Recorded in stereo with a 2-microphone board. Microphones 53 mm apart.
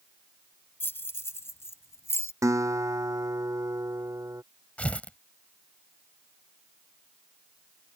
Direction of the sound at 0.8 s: 45° left (ahead or behind).